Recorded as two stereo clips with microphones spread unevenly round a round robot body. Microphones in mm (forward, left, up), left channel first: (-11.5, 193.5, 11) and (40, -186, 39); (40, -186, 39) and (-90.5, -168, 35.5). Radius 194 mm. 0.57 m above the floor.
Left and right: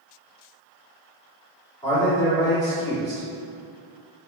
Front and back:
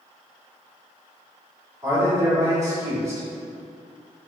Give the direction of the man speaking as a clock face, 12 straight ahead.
7 o'clock.